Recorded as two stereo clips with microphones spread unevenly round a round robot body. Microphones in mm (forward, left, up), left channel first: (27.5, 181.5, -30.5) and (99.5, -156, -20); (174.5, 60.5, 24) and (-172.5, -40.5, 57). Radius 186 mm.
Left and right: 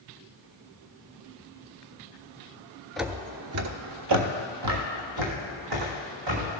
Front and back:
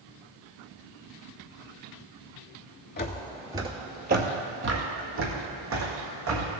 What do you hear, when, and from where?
3.0 s footsteps: 10° left, 0.5 m; by 6.6 s 110° right, 3 m